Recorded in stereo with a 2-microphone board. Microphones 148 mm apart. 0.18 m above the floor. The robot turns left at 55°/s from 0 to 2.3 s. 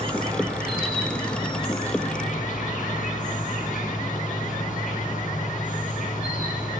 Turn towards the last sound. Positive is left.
turn(degrees=105)